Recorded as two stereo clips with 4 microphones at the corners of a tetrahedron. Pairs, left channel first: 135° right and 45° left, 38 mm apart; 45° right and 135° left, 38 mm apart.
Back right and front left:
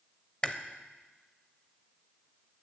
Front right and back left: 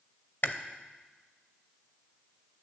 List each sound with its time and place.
0.4 s chewing: 70° right, 0.7 m